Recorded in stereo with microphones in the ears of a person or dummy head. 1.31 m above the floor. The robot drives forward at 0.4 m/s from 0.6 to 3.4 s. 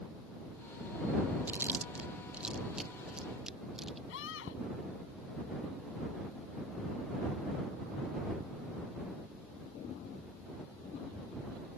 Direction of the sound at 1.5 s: 10° right (ahead or behind).